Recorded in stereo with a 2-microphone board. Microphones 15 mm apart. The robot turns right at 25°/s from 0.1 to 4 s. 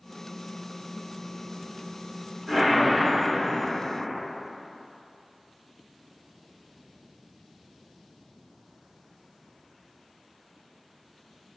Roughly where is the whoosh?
Right.